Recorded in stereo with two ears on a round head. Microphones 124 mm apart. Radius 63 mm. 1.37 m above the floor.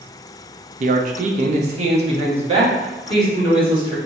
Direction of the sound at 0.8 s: 55° right (ahead or behind).